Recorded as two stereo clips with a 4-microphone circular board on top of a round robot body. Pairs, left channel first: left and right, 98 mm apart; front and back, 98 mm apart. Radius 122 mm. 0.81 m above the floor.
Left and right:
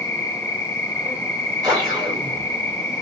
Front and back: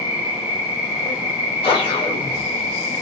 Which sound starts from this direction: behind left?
An insect, at 0.0 s.